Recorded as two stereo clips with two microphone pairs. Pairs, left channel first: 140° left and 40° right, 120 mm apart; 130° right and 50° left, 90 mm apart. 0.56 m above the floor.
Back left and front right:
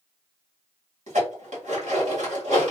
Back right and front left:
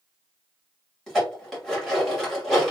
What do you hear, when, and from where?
1.1 s dishes clattering: 45° right, 1.8 m